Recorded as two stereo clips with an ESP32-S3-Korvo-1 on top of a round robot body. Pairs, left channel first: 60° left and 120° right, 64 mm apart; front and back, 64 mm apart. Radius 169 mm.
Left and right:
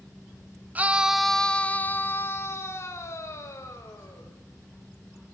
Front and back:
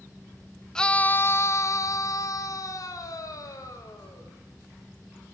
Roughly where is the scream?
Right.